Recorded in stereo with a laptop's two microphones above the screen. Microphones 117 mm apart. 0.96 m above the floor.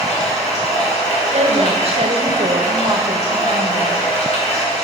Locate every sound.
0.0 s running water: 80° left, 3 m
1.3 s a woman speaking: 60° right (ahead or behind), 0.8 m